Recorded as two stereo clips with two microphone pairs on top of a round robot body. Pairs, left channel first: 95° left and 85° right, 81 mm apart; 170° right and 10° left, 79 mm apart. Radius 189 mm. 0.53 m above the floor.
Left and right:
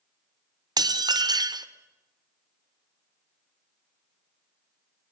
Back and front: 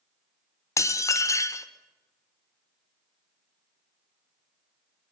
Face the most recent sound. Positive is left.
turn(degrees=-120)